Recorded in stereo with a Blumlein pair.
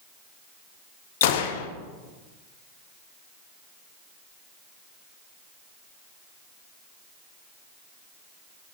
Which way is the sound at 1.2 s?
50° left.